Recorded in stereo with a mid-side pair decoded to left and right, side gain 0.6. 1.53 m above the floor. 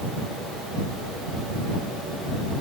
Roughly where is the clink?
I don't hear a clink.